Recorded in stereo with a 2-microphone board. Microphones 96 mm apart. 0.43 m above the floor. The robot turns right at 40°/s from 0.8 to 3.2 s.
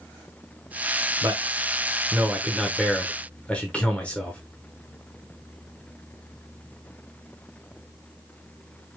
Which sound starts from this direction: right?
A man speaking, at 1.2 s.